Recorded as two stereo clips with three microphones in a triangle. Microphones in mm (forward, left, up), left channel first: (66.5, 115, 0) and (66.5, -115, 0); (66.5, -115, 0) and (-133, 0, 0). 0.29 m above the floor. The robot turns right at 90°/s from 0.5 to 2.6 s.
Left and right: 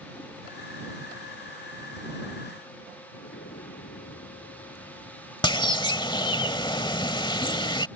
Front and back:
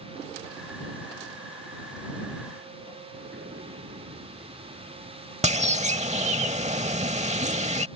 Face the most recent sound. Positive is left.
turn(degrees=135)